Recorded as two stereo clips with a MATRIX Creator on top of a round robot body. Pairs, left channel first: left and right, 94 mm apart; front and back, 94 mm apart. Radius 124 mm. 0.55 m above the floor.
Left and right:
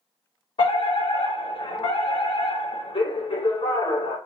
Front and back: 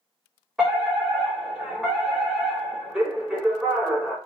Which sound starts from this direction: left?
A fire alarm, at 0.6 s.